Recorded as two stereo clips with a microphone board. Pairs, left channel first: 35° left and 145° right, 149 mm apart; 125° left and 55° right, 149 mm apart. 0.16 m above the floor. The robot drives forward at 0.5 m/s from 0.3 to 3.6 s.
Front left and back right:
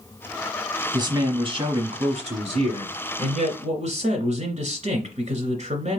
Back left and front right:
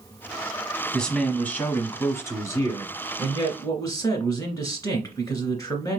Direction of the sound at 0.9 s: 155° right.